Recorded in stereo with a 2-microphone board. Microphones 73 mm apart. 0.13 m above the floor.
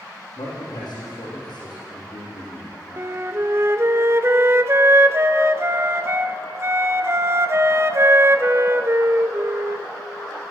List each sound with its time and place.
0.4 s a man speaking: 75° left (ahead or behind), 5 m
3.0 s a flute: 40° right (ahead or behind), 0.6 m